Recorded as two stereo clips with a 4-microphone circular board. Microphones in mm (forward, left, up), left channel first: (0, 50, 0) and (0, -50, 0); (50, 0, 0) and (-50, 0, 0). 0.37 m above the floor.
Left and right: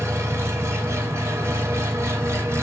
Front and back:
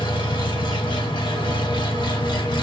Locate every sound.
0.0 s an engine running: 30° right, 1.3 m